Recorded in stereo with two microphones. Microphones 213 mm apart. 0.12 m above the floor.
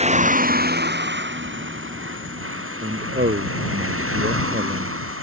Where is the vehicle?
30° right (ahead or behind); by 5.2 s 85° right.